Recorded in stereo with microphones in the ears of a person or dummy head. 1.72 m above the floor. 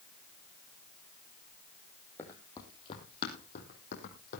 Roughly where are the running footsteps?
Centre.